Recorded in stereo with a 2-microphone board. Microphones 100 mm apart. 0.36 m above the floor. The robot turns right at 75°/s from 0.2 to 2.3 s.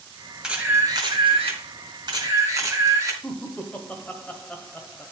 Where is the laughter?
15° left (ahead or behind), 1.3 m.